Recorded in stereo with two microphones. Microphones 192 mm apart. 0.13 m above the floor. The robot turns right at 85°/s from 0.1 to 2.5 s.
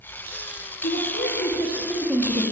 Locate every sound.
0.8 s a woman speaking: 75° left, 3 m; by 2.4 s 150° right, 3 m